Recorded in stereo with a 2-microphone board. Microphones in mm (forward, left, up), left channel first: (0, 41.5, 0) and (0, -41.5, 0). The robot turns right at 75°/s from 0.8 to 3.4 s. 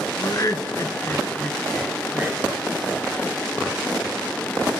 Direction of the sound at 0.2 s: 40° left (ahead or behind).